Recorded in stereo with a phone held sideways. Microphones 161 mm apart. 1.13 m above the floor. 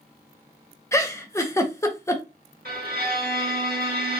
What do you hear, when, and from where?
0.9 s a giggle: 20° left (ahead or behind), 0.6 m
2.6 s a violin: 70° right (ahead or behind), 1.7 m